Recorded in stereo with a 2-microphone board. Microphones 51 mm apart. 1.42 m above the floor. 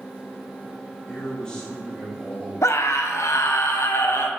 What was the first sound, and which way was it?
A man speaking, 15° left (ahead or behind).